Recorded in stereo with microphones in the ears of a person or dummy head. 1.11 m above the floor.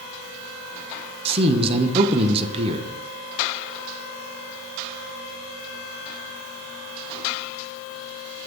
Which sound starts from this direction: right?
A man speaking, at 1.2 s.